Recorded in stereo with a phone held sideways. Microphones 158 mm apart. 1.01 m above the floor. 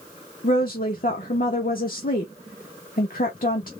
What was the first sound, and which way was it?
A woman speaking, 65° left (ahead or behind).